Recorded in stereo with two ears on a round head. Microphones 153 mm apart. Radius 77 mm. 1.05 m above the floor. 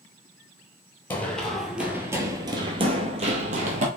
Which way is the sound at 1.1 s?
10° left (ahead or behind).